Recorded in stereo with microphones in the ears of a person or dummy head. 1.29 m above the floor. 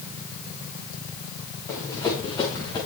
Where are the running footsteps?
10° left (ahead or behind), 7.5 m; by 2.8 s 15° left (ahead or behind), 7.5 m.